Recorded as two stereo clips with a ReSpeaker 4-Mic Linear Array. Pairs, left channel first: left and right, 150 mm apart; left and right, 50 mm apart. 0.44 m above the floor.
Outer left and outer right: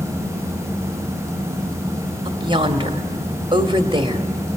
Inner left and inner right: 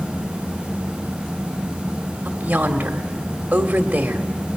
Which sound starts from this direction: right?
A woman speaking, at 2.2 s.